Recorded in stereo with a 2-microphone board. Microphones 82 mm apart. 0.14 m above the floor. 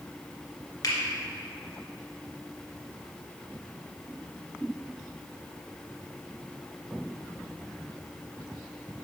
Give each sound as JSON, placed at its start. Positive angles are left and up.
{"t": 0.8, "sound": "a finger snap", "side_deg": 55, "distance_m": 2.0}